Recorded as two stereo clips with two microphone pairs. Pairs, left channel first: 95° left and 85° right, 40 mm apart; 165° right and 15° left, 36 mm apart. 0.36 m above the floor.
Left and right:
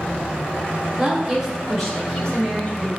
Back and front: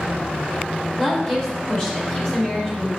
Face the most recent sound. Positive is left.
turn(degrees=140)